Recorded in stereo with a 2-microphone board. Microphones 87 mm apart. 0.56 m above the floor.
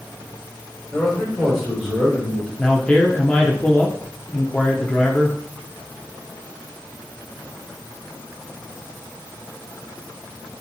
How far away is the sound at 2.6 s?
About 0.7 m.